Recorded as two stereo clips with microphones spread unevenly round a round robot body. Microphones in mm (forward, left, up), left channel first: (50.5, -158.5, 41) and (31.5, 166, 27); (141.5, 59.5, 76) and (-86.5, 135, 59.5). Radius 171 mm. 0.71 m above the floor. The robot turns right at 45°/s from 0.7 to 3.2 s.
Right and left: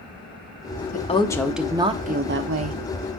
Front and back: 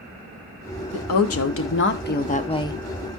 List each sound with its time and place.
0.9 s a woman speaking: 20° right, 1.1 m; by 2.8 s 60° left, 1.1 m